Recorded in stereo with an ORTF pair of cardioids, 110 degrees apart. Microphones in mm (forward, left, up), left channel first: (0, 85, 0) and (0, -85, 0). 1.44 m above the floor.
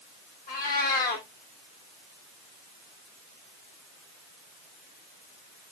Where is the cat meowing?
65° left, 2.5 m.